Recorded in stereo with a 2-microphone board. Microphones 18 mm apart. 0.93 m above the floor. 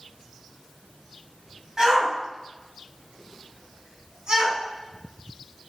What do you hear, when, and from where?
1.8 s a shout: 30° right (ahead or behind), 6 m